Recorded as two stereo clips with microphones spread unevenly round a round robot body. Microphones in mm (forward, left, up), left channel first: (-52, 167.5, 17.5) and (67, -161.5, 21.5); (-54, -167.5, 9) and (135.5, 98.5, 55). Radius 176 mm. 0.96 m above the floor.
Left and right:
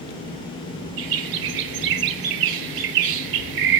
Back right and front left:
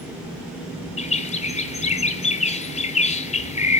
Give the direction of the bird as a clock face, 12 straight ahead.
2 o'clock.